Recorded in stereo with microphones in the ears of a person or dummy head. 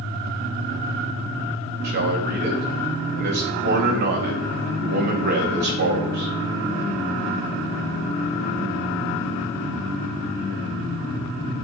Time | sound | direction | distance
1.8 | a man speaking | 45° right (ahead or behind) | 2.5 m